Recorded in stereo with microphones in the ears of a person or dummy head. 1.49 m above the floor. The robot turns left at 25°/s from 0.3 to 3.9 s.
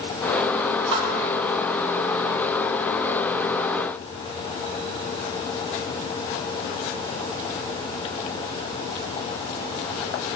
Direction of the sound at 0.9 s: 25° right (ahead or behind).